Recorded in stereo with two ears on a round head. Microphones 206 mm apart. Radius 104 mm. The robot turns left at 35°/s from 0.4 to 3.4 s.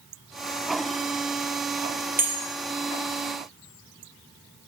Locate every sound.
2.2 s a bell: 10° right (ahead or behind), 1.2 m; by 2.5 s 15° right (ahead or behind), 1.2 m